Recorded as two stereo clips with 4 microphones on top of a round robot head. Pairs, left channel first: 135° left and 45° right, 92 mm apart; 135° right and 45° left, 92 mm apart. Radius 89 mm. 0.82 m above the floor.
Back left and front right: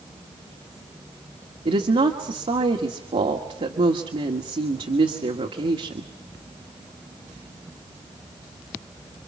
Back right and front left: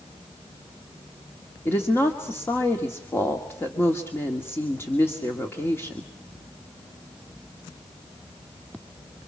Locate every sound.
1.6 s a woman speaking: 65° right, 1.9 m